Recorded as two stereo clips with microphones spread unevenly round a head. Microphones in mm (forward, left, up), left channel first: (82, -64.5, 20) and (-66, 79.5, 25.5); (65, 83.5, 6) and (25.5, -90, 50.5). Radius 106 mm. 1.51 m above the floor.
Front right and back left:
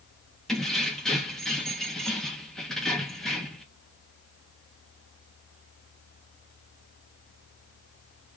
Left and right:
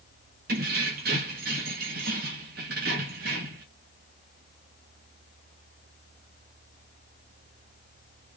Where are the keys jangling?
135° right, 1.4 m.